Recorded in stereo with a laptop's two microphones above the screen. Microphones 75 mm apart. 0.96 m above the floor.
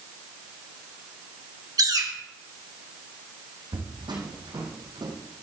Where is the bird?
55° right (ahead or behind), 2.0 m.